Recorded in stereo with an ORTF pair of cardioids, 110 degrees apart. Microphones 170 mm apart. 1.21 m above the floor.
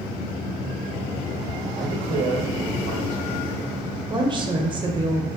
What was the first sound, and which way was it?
A man speaking, 65° right.